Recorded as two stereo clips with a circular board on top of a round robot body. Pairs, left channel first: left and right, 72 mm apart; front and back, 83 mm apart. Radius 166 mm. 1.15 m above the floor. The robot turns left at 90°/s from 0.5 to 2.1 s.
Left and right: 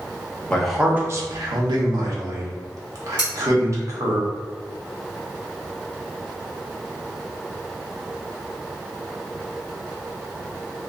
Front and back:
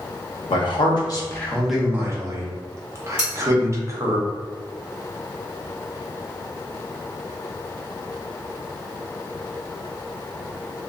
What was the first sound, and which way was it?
A man speaking, 15° left.